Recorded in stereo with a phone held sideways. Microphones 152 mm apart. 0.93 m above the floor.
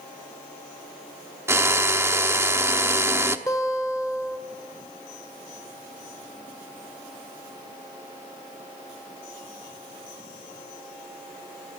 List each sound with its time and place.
1.5 s a drill: 15° right (ahead or behind), 1.0 m
3.5 s a guitar: 20° left (ahead or behind), 1.6 m